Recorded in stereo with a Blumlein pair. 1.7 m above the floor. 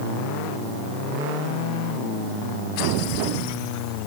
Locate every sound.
Only background noise.